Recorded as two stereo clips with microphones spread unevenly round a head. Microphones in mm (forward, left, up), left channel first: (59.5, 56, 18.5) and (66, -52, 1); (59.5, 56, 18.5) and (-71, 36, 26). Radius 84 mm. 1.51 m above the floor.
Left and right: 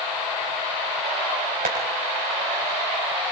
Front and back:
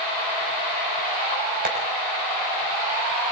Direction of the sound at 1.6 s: 130° right.